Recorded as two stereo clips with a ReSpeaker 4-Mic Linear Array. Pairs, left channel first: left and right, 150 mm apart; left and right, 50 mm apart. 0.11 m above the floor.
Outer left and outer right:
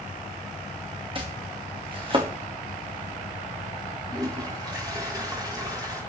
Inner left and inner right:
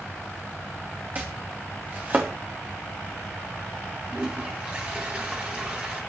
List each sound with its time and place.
1.1 s chopping: 35° right (ahead or behind), 2.5 m
4.1 s a toilet flushing: 25° right (ahead or behind), 5.5 m